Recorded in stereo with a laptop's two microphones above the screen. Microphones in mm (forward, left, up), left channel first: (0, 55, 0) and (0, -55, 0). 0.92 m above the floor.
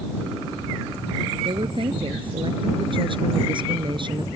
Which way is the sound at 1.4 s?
50° right (ahead or behind).